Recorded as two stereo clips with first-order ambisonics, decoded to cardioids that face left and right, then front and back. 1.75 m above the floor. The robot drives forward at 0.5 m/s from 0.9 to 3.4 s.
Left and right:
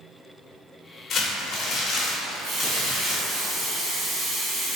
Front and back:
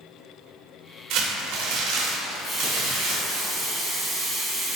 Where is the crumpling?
150° left, 0.6 m; by 3.4 s 170° left, 1.7 m.